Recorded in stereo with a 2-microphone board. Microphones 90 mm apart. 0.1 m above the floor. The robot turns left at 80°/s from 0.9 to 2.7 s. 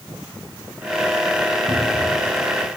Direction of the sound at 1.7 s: 50° right.